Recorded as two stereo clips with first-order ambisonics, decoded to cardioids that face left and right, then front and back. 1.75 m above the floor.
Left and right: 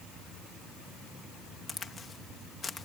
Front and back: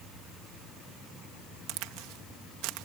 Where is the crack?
160° left.